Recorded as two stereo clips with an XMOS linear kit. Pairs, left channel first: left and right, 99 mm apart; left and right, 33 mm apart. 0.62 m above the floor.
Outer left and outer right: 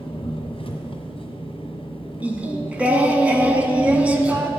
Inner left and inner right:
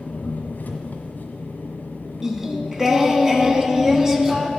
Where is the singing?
15° right (ahead or behind), 0.9 m.